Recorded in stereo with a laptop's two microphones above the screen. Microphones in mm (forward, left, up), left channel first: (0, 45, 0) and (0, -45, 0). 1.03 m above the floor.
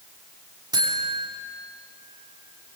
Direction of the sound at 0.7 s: 50° right (ahead or behind).